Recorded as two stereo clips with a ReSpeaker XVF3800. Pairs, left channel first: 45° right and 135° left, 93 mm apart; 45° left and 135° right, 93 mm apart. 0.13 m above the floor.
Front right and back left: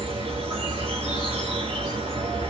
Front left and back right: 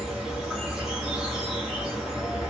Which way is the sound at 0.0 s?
140° left.